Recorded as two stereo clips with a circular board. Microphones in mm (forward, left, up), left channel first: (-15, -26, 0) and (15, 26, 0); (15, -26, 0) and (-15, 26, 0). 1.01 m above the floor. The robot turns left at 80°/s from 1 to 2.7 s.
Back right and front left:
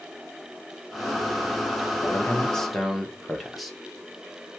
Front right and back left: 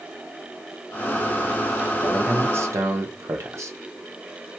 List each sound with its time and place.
2.0 s a man speaking: 155° right, 0.6 m; by 3.8 s 150° left, 0.6 m